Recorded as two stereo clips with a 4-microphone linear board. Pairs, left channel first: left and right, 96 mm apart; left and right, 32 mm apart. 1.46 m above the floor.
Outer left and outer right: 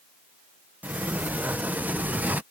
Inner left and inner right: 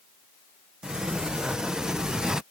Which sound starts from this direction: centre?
A sliding door, at 0.8 s.